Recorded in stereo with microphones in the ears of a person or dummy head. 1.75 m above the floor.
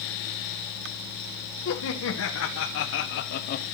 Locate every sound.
1.6 s laughter: 70° left (ahead or behind), 1.7 m; by 3.6 s 50° left (ahead or behind), 0.7 m